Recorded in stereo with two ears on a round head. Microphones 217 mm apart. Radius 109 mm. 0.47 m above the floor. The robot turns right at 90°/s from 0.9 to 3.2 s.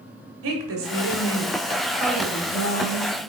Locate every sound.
0.4 s a woman speaking: 105° right, 1.6 m; by 3.3 s 100° left, 1.6 m